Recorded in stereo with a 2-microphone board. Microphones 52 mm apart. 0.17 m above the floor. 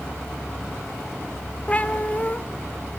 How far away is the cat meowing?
About 1.1 m.